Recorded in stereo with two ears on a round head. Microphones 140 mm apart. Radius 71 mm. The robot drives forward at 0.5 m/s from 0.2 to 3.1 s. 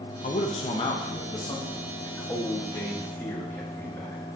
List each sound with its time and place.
0.2 s a man speaking: 50° left (ahead or behind), 0.7 m; by 4.2 s 15° left (ahead or behind), 2 m